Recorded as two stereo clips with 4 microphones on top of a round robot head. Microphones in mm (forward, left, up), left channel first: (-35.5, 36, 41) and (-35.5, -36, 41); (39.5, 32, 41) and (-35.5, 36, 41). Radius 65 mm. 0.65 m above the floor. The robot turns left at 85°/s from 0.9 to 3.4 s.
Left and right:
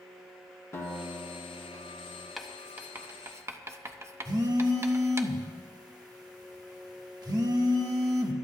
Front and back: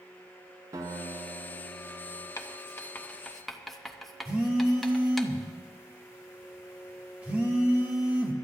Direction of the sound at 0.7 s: 140° left.